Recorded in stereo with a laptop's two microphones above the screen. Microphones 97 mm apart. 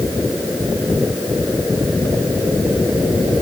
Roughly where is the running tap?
No running tap in this recording.